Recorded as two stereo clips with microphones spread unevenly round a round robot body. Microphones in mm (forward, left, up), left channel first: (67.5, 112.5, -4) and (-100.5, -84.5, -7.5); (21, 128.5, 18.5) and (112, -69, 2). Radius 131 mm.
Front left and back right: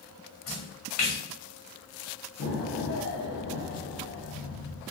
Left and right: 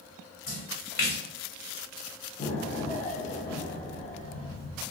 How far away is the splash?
About 2.0 m.